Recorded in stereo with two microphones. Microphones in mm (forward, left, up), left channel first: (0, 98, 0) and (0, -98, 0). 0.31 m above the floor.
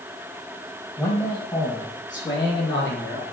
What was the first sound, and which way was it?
A man speaking, 10° left (ahead or behind).